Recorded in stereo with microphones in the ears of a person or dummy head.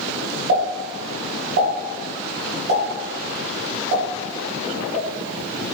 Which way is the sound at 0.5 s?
55° right (ahead or behind).